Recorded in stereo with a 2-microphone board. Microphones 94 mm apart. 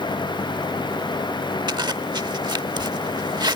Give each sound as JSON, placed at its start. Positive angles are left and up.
{"t": 1.7, "sound": "a zipper", "side_deg": -55}